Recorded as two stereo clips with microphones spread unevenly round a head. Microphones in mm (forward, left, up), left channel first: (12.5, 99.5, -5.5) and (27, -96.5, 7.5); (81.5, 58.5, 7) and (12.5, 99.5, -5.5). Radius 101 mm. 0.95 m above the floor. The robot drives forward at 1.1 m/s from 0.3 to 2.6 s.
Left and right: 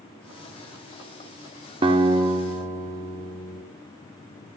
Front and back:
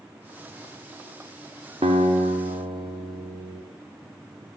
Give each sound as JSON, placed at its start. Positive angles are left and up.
{"t": 1.8, "sound": "a guitar", "azimuth_deg": -150, "distance_m": 1.5}